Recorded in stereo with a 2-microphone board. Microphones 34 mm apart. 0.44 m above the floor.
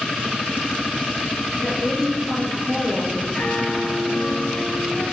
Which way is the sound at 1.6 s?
Centre (ahead or behind).